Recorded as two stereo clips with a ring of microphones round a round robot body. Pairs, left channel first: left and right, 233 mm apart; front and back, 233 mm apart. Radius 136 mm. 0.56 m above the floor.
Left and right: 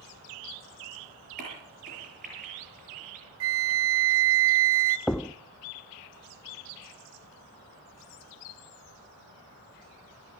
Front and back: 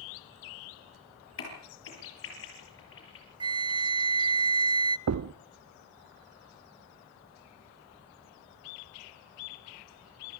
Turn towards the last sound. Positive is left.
turn(degrees=175)